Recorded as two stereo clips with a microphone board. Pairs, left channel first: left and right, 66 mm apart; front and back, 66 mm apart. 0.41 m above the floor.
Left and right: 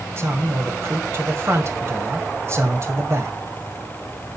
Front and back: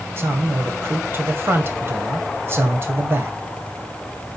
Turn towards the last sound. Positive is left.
turn(degrees=-135)